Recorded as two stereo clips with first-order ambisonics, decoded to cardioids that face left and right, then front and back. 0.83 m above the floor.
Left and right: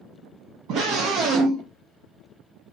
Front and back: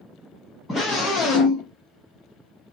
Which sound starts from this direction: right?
A scream, at 0.7 s.